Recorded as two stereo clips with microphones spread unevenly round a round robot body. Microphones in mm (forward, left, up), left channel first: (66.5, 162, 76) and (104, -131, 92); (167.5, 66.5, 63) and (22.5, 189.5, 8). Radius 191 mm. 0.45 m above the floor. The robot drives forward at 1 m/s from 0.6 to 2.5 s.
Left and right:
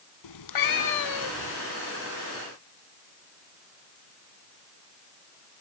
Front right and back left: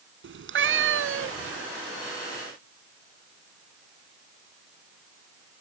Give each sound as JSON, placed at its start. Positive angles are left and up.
{"t": 0.2, "sound": "a cat meowing", "azimuth_deg": 125}